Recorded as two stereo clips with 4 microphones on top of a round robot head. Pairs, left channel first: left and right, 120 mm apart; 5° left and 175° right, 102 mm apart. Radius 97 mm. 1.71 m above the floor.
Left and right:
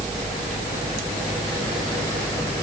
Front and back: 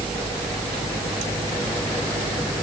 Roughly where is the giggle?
I don't hear a giggle.